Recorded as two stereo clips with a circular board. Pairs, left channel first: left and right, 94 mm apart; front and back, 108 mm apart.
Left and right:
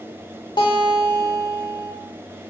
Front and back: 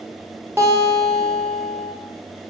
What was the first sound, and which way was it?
A guitar, 115° left.